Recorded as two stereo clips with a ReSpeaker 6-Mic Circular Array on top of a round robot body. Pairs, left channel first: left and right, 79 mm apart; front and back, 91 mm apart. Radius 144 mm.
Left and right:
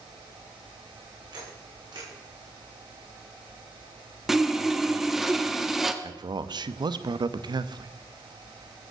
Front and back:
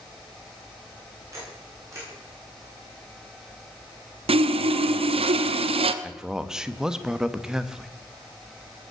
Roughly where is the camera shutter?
Behind right.